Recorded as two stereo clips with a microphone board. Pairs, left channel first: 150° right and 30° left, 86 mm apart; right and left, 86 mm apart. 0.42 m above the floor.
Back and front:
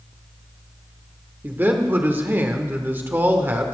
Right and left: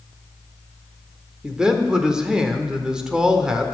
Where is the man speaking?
20° left, 1.0 m.